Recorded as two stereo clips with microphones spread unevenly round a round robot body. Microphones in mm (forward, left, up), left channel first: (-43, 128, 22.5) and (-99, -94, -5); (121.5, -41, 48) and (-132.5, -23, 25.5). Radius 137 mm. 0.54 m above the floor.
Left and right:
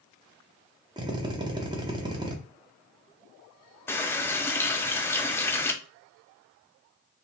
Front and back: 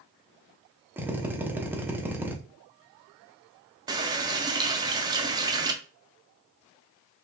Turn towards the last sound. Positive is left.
turn(degrees=160)